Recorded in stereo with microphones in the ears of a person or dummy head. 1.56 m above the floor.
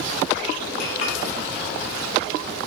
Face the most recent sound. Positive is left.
turn(degrees=70)  # may be behind; listen again after turning